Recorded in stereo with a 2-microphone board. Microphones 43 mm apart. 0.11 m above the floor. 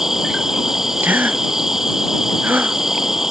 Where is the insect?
10° right (ahead or behind).